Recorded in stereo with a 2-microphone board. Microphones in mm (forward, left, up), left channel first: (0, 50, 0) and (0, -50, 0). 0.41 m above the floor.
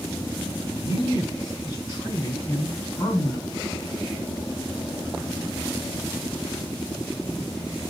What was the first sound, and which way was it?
A man speaking, 40° left (ahead or behind).